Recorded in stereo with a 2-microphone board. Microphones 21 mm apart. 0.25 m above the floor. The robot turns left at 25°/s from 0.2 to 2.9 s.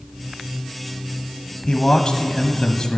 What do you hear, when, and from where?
1.7 s a man speaking: 120° left, 1.4 m; by 3.0 s 90° left, 1.4 m